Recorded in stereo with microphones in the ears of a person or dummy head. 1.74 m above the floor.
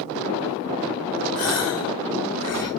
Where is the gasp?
55° left (ahead or behind), 0.7 m.